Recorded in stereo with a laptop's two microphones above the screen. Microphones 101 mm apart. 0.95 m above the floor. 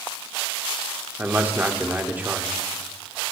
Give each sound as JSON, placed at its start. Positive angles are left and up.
{"t": 1.2, "sound": "a man speaking", "side_deg": -15, "distance_m": 1.0}